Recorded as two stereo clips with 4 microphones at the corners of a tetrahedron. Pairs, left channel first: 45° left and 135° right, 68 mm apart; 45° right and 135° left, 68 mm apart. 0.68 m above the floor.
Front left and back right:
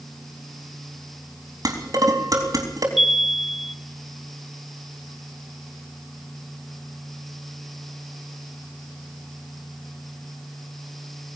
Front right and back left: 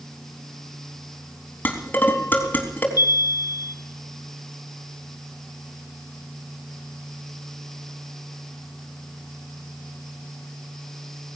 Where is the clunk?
No clunk in this recording.